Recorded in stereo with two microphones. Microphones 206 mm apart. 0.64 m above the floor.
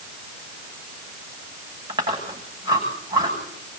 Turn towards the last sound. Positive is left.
turn(degrees=-20)  # may be behind; listen again after turning